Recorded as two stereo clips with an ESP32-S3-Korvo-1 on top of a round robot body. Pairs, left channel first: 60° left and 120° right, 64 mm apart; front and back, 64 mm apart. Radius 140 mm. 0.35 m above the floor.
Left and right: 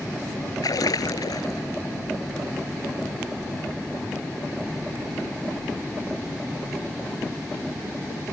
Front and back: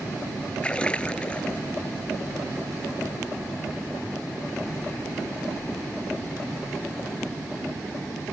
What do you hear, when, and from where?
0.6 s a splash: 75° left